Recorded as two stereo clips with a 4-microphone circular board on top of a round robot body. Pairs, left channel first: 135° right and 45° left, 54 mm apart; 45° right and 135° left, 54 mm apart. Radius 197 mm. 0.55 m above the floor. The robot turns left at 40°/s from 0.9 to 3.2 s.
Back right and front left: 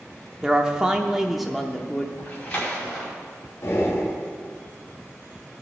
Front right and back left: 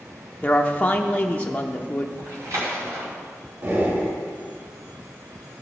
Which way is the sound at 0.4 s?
30° right.